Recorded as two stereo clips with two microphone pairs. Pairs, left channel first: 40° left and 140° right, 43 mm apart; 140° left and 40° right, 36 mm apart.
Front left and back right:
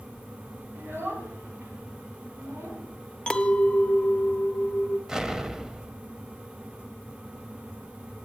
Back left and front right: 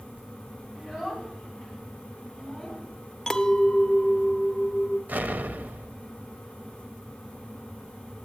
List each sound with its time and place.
0.8 s a child speaking: 115° right, 2.5 m; by 2.9 s 130° right, 4 m
3.3 s a clink: 80° left, 0.6 m
5.1 s an explosion: 65° right, 0.5 m